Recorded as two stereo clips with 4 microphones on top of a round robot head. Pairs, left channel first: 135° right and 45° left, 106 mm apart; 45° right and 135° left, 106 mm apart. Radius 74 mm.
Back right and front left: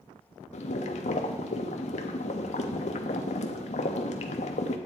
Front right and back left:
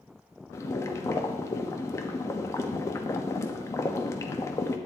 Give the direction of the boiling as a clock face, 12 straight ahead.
4 o'clock.